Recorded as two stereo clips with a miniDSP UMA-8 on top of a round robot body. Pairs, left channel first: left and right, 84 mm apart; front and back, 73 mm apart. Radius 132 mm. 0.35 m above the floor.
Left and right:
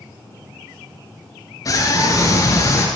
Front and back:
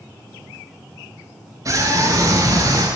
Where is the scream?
135° left, 9 m; by 2.9 s 145° left, 9.5 m.